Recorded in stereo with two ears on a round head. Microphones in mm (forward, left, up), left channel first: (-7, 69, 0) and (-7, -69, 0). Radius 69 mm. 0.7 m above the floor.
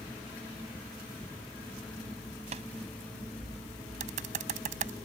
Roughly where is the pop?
Right.